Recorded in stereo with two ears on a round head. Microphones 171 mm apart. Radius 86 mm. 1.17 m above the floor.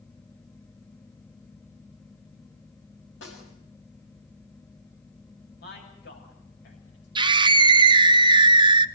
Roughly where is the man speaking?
Left.